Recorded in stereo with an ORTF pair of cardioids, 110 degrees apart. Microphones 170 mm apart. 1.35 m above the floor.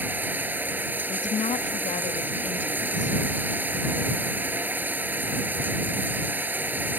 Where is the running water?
10° right.